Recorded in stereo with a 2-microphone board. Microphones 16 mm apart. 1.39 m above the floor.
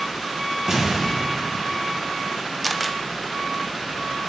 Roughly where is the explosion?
Right.